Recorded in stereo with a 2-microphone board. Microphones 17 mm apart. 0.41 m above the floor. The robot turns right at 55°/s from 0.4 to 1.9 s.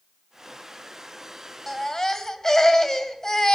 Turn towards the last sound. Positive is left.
turn(degrees=20)  # may be behind; listen again after turning